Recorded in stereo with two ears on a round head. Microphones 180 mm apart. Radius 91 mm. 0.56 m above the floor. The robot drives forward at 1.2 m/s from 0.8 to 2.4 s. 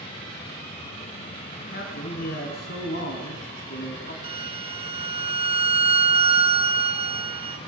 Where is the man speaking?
40° left (ahead or behind), 4.5 m; by 4.1 s 50° left (ahead or behind), 4 m.